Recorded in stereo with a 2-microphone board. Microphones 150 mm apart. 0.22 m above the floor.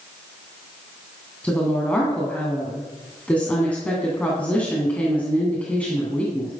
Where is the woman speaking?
10° left (ahead or behind), 2.5 m.